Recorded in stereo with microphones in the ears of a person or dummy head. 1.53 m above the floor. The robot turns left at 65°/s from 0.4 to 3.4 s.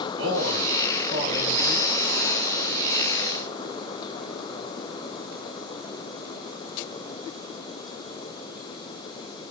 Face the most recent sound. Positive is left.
turn(degrees=100)